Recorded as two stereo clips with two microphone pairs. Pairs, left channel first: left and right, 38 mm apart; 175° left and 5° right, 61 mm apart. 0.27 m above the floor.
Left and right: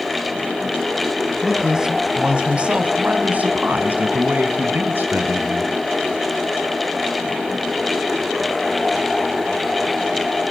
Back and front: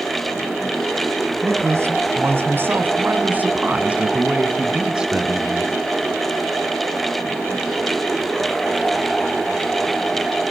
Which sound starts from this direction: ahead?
A man speaking, at 1.4 s.